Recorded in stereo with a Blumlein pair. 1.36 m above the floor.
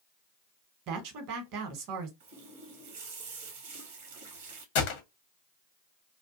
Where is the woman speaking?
40° right, 1.0 m.